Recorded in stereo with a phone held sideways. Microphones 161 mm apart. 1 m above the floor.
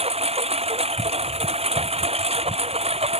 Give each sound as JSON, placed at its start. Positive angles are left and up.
{"t": 0.0, "sound": "a lawn mower", "side_deg": -40}